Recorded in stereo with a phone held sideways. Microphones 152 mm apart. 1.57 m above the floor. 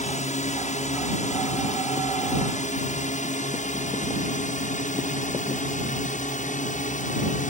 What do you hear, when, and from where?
0.0 s a drone: 50° left (ahead or behind); by 7.5 s 55° left (ahead or behind)